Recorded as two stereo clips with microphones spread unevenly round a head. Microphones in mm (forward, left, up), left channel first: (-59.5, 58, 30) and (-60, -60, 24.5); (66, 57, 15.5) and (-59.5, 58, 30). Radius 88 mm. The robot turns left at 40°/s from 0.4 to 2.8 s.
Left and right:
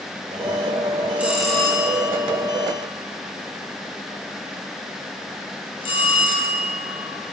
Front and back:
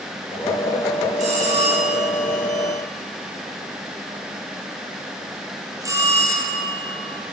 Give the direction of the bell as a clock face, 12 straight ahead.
6 o'clock.